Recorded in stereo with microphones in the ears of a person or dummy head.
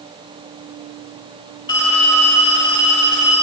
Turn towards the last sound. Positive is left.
turn(degrees=20)  # may be behind; listen again after turning